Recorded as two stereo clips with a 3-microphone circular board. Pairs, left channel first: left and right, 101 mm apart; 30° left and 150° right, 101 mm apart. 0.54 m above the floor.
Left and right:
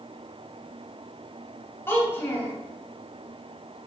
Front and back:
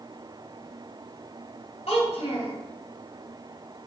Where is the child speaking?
25° left, 2.5 m.